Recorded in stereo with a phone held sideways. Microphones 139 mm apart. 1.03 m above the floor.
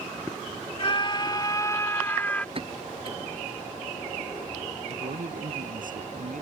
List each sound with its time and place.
0.8 s a scream: 40° left (ahead or behind); by 2.5 s 10° left (ahead or behind)
2.5 s a pop: 40° right (ahead or behind)
4.9 s a man speaking: 75° right (ahead or behind)